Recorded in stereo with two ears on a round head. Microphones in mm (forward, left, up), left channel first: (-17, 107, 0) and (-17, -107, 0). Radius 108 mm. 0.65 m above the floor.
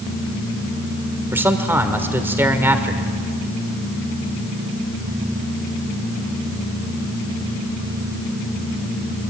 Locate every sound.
1.3 s a man speaking: 10° right (ahead or behind), 1.9 m